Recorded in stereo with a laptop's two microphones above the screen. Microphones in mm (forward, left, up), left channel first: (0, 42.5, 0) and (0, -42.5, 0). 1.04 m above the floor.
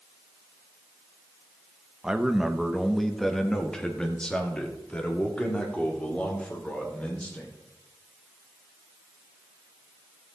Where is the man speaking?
10° right (ahead or behind), 1.1 m; by 7.5 s 20° left (ahead or behind), 4 m.